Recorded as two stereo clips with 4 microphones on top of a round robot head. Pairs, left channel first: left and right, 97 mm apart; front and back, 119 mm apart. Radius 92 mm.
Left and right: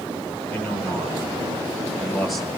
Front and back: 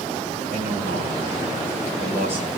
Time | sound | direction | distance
0.5 | a man speaking | 15° left | 8.5 m